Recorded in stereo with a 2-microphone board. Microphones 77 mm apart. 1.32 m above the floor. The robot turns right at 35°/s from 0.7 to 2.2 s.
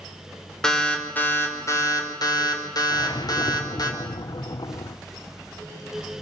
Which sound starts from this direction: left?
A whoosh, at 2.9 s.